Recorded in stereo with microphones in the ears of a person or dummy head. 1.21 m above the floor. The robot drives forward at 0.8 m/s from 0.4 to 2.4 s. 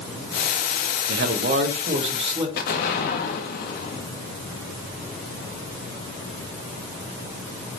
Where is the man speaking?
65° right (ahead or behind), 0.9 m; by 2.5 s 30° right (ahead or behind), 1.6 m.